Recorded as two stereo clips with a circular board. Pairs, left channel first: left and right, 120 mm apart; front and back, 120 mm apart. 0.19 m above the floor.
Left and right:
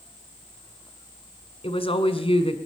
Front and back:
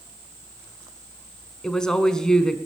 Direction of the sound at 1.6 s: 85° left.